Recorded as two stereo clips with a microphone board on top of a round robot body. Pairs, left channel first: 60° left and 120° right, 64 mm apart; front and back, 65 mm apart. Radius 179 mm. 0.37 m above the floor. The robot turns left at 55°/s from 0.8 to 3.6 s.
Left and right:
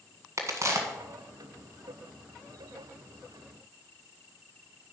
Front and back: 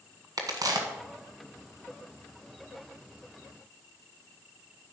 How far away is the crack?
About 1.5 m.